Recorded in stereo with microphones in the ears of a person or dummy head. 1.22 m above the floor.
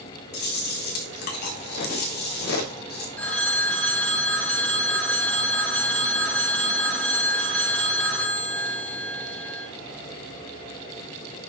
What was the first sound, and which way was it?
Chewing, 50° left (ahead or behind).